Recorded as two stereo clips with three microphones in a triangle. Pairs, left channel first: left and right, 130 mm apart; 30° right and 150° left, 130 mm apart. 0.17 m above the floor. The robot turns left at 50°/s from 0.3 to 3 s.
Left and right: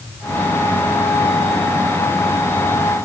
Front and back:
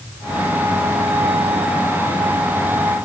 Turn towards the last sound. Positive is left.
No sound to turn to.